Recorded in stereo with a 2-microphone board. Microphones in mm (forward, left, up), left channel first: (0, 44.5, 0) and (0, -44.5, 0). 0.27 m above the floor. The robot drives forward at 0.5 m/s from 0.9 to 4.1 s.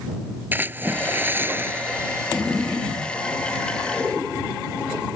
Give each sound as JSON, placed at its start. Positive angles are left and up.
{"t": 0.5, "sound": "a splash", "side_deg": -20}